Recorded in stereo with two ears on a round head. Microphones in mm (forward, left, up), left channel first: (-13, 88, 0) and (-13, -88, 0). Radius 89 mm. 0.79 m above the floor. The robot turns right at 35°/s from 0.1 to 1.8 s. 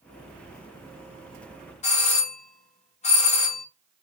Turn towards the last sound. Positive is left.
turn(degrees=35)  # may be behind; listen again after turning